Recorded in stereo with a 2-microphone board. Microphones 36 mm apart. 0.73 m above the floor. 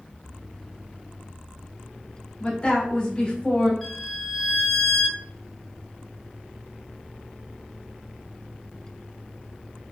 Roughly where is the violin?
Centre.